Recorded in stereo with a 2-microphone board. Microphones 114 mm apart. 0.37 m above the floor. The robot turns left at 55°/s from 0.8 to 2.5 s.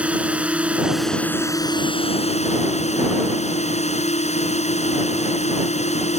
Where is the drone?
170° right; by 6.2 s 95° left.